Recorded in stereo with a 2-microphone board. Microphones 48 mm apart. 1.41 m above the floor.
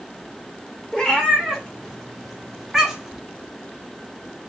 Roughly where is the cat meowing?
Centre.